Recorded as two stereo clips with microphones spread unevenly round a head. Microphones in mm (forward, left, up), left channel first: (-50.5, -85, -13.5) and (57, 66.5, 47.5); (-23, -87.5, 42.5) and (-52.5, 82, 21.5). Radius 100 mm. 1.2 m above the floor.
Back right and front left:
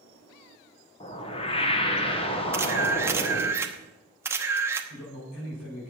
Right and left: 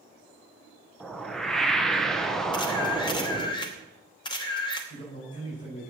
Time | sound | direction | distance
1.0 | a whoosh | 170° right | 1.2 m
2.5 | a camera shutter | 15° right | 1.0 m
4.9 | a man speaking | 140° right | 5.5 m